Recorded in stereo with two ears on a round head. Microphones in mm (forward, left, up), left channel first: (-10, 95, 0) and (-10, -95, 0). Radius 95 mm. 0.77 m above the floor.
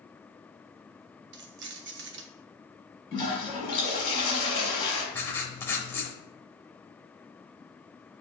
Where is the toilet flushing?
25° left (ahead or behind), 2.5 m.